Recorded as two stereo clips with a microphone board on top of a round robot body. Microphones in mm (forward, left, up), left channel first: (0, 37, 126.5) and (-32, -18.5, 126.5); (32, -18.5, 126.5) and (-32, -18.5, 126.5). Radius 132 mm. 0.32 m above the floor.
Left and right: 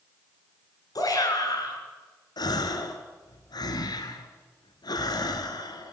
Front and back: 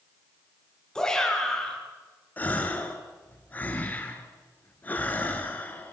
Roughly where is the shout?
Left.